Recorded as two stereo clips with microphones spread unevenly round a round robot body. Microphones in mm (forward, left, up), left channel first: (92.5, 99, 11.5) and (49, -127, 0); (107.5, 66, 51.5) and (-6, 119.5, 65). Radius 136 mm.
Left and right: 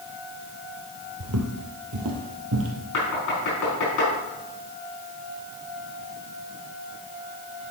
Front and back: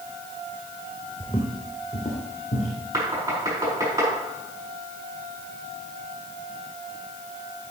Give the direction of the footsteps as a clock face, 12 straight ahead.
4 o'clock.